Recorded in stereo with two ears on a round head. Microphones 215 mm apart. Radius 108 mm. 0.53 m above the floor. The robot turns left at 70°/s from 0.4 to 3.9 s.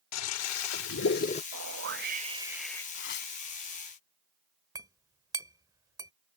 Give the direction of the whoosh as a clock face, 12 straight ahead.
3 o'clock.